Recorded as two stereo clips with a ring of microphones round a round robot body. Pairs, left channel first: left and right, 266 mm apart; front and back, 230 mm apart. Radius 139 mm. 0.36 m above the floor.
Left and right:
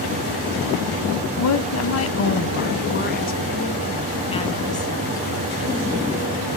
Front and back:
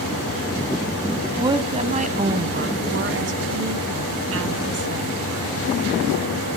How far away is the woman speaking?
About 2.5 m.